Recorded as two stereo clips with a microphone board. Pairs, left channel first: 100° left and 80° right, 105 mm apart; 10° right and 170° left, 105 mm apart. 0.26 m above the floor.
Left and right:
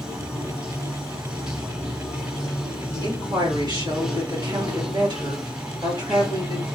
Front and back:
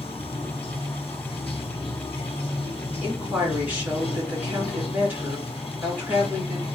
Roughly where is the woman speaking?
Behind right.